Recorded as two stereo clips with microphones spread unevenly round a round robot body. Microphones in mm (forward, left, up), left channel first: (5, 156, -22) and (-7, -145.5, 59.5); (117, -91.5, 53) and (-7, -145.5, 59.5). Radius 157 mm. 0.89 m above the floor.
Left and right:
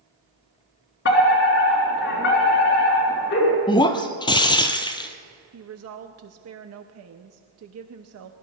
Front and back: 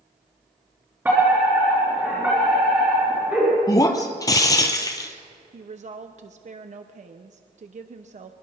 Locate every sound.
1.1 s a fire alarm: 125° left, 3.5 m
3.7 s breaking glass: 5° right, 0.9 m
5.5 s a woman speaking: 140° right, 0.9 m